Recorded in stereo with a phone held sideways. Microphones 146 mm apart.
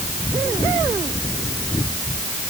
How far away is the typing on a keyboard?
No typing on a keyboard in this recording.